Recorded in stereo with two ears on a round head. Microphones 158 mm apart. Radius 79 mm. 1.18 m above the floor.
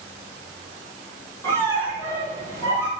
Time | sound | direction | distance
1.4 | a squeak | 15° left (ahead or behind) | 2.5 m